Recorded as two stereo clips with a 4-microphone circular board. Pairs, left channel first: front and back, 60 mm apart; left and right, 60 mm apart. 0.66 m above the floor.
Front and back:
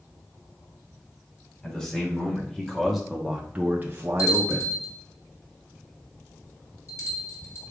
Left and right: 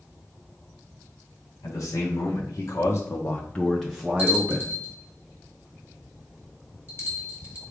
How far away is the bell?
About 1.9 m.